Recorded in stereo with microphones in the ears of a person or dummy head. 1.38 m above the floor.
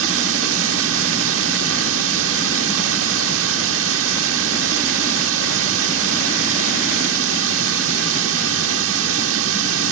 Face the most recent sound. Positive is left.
turn(degrees=-75)  # may be behind; listen again after turning